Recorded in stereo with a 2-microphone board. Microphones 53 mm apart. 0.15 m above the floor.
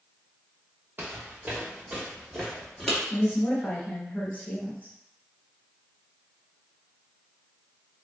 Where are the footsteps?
40° right (ahead or behind), 1.1 m; by 3.0 s 5° left (ahead or behind), 1.9 m.